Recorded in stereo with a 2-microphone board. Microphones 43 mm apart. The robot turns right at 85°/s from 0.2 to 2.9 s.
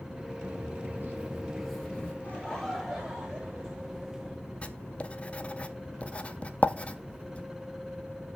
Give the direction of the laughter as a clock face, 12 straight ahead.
7 o'clock.